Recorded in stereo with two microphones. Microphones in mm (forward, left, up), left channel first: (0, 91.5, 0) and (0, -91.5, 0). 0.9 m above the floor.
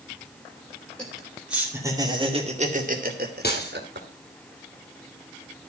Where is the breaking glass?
60° left (ahead or behind), 3 m.